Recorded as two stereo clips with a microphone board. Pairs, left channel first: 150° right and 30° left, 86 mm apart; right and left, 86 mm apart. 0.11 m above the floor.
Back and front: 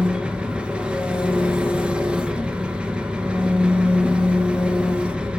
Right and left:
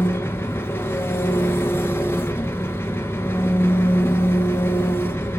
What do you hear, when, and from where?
0.0 s an engine running: 40° right, 1.5 m